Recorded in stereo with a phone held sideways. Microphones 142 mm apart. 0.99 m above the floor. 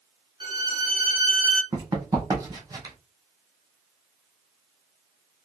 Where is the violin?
35° right (ahead or behind), 1.3 m.